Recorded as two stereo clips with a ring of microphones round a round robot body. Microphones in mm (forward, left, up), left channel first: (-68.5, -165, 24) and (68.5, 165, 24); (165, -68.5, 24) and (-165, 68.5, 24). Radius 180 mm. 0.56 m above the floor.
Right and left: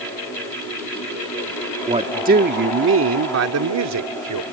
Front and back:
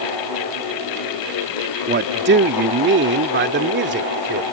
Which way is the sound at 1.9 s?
130° left.